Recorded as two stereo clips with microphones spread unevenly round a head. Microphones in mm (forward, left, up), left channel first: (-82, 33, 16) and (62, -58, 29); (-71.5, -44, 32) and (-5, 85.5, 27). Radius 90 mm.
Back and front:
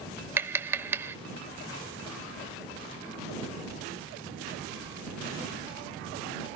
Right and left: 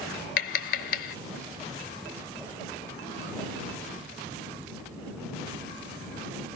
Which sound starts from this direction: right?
Tapping, at 0.4 s.